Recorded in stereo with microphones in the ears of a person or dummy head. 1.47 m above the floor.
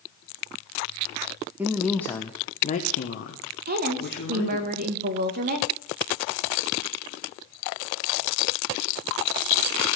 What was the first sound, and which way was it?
A man speaking, 10° right (ahead or behind).